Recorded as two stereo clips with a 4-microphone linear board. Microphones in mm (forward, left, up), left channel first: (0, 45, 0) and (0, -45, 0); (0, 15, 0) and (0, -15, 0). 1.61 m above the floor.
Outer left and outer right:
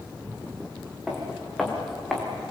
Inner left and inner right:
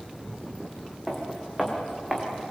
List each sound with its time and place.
1.1 s footsteps: 5° right (ahead or behind), 5.5 m; by 2.2 s centre (ahead or behind), 5.5 m